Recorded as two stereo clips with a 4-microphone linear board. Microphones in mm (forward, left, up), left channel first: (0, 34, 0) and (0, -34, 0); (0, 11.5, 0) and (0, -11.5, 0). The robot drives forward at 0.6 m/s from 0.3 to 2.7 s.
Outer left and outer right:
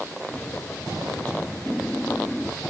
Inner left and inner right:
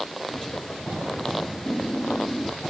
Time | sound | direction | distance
1.7 | laughter | 10° left (ahead or behind) | ?